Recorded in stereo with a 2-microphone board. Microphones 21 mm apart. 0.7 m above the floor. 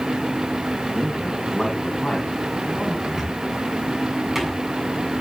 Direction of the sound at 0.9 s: 20° left (ahead or behind).